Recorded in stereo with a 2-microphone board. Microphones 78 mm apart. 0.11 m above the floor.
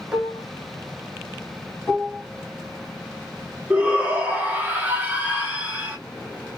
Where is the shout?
20° right (ahead or behind), 1.3 m.